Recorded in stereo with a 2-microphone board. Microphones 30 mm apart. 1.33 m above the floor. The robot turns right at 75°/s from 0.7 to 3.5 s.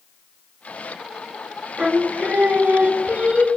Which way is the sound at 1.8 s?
155° right.